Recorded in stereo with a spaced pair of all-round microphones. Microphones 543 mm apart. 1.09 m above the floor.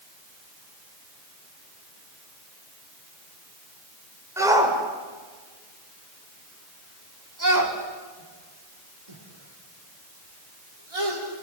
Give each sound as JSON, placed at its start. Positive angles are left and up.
{"t": 4.4, "sound": "a shout", "side_deg": -5, "distance_m": 4.0}